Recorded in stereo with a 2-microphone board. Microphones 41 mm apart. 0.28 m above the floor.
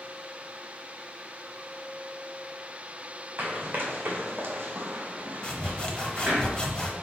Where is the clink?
I don't hear a clink.